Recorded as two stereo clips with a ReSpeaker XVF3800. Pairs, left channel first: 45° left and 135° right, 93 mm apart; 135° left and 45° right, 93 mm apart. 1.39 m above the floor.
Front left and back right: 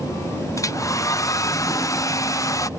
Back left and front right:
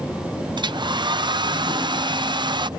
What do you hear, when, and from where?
0.6 s a hair dryer: 10° right